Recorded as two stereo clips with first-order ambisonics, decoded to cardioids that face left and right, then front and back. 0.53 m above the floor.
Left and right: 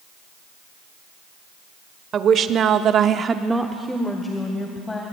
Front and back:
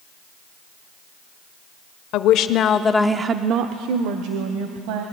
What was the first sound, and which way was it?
A woman speaking, 30° right.